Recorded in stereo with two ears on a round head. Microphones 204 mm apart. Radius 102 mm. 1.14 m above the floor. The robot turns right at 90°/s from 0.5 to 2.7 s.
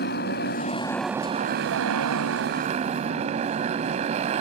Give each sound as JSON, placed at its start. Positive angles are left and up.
{"t": 0.0, "sound": "a motorcycle", "azimuth_deg": 130}